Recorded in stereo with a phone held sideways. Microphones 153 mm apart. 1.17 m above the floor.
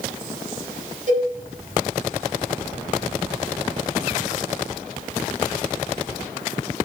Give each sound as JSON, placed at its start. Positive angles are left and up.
{"t": 1.1, "sound": "a cowbell", "side_deg": -55, "distance_m": 2.0}